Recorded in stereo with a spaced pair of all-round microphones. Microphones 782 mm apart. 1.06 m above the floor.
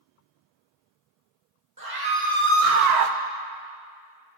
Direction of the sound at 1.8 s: 25° right (ahead or behind).